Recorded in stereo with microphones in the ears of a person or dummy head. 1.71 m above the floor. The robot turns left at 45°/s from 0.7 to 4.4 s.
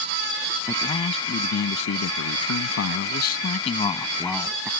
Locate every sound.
0.7 s a man speaking: 170° left; by 4.7 s 5° left